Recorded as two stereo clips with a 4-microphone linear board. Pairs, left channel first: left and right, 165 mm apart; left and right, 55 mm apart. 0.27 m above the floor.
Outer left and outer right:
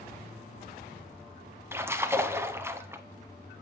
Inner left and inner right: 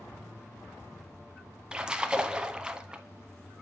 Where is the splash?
15° right (ahead or behind), 0.6 m.